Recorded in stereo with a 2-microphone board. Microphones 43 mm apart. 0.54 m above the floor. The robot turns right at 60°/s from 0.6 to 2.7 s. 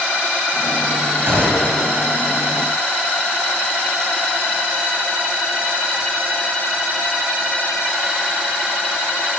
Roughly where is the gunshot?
Right.